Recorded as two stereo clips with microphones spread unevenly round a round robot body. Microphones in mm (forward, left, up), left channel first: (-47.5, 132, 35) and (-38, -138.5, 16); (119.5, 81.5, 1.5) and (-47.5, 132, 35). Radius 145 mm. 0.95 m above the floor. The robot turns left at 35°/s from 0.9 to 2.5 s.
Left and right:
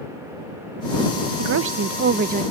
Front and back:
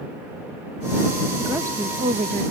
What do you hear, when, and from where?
1.4 s a woman speaking: 105° right; by 2.4 s 140° right